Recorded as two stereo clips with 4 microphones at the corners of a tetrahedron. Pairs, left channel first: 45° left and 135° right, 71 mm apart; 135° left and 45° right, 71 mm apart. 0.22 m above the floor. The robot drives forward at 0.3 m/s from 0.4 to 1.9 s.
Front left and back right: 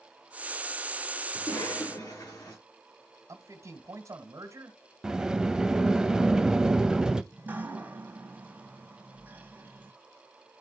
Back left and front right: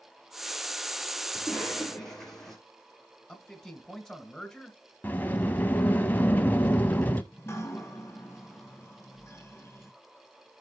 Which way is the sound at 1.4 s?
50° left.